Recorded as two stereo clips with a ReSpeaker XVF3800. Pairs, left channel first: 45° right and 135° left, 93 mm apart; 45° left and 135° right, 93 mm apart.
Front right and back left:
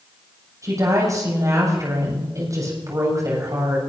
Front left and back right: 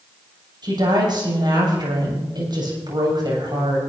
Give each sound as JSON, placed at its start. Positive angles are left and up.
{"t": 0.6, "sound": "a woman speaking", "azimuth_deg": -175, "distance_m": 7.5}